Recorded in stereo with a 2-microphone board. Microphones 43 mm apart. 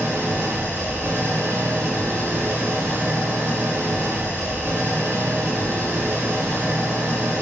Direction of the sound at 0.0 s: 80° right.